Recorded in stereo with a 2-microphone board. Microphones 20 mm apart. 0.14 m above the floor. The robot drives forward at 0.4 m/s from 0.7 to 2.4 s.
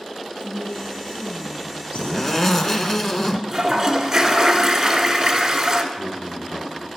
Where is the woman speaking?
65° left (ahead or behind), 3 m; by 2.2 s 70° left (ahead or behind), 3 m.